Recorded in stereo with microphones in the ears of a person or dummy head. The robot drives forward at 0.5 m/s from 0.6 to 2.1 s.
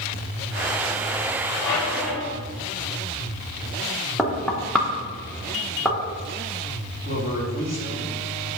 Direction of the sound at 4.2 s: 5° left (ahead or behind).